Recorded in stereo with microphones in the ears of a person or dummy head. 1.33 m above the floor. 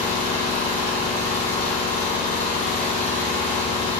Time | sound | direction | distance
0.0 | an engine running | 45° left (ahead or behind) | 2.5 m